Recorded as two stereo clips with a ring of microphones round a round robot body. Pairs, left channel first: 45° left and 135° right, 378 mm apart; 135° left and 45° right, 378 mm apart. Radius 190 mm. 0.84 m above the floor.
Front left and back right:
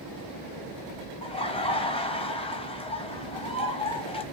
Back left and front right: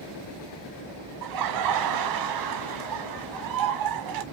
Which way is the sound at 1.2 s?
30° right.